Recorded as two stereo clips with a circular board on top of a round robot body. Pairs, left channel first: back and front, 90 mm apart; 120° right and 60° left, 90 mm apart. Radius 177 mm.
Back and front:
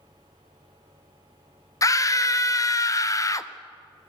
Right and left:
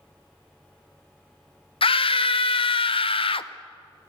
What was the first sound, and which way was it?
A scream, 125° right.